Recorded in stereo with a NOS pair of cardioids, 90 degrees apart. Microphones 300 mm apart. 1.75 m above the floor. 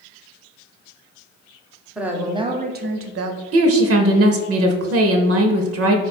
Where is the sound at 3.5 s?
55° right, 0.7 m.